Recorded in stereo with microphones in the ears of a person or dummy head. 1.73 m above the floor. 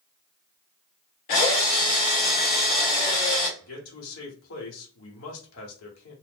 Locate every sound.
1.3 s a drill: 35° left (ahead or behind), 1.0 m
3.6 s a man speaking: 75° left (ahead or behind), 1.3 m